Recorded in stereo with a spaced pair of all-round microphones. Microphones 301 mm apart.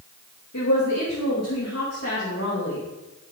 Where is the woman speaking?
65° left (ahead or behind), 3 m; by 2.8 s 45° left (ahead or behind), 2.5 m.